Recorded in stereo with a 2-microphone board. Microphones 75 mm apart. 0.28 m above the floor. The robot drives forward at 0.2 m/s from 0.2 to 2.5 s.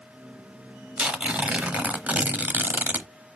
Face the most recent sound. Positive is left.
turn(degrees=-25)  # may be behind; listen again after turning